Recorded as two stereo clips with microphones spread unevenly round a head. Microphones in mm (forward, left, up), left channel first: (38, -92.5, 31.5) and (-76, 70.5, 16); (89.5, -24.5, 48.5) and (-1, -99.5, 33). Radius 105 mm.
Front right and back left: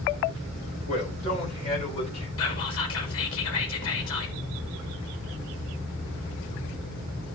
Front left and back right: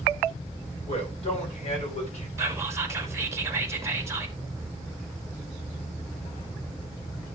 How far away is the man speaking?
About 9.5 m.